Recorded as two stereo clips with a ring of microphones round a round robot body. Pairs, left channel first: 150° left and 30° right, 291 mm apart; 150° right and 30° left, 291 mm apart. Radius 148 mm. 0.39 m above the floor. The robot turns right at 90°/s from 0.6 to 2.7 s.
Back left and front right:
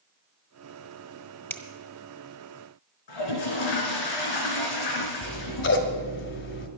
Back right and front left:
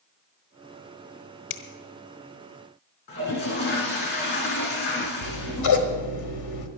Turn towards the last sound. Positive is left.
turn(degrees=-165)